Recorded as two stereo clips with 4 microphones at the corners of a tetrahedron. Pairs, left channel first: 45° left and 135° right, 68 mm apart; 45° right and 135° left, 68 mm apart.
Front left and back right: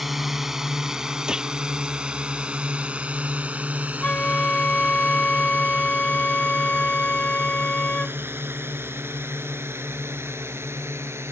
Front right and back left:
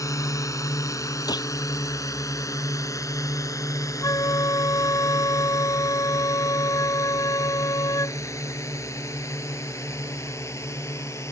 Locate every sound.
0.0 s a drone: 50° right; by 11.3 s 90° right
1.3 s a gunshot: 55° right
4.0 s a flute: 25° right